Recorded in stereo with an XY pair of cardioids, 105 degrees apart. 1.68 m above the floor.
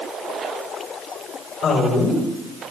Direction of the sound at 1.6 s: 65° left.